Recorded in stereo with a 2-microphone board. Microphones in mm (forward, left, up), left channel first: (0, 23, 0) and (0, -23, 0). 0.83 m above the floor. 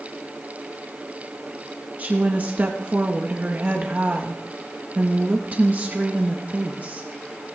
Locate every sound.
2.0 s a woman speaking: 40° right (ahead or behind), 0.8 m